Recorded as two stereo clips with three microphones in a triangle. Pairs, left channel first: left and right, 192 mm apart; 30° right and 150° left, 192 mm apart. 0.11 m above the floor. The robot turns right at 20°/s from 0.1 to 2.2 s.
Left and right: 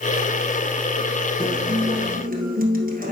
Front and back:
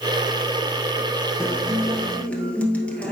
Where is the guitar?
130° right, 1.8 m; by 3.1 s 110° right, 1.8 m.